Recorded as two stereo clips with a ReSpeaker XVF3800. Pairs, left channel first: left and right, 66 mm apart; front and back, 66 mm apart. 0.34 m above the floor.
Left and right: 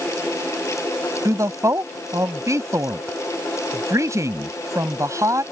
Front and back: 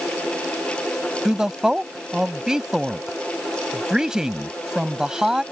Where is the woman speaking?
100° right.